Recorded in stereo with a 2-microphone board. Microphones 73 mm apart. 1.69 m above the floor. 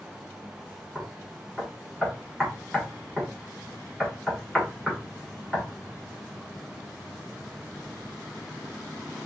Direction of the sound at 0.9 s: Centre (ahead or behind).